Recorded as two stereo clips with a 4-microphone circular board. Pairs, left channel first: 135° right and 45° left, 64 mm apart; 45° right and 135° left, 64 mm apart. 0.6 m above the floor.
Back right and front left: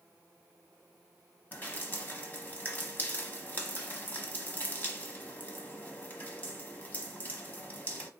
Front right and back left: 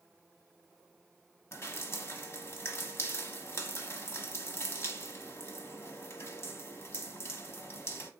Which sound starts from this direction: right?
Dripping, at 1.5 s.